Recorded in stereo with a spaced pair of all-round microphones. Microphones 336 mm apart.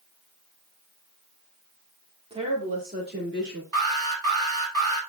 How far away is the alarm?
About 5.5 m.